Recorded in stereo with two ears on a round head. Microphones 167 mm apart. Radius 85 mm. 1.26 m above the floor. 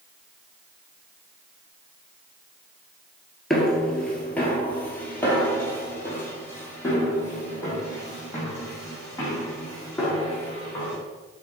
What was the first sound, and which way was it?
Footsteps, centre (ahead or behind).